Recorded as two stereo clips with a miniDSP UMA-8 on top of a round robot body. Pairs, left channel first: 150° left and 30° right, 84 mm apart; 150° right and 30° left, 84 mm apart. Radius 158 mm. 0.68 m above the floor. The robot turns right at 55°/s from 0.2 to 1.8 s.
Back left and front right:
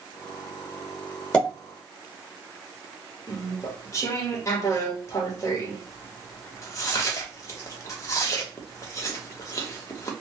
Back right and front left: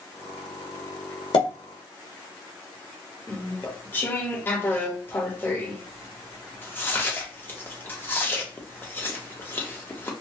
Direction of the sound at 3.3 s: 165° left.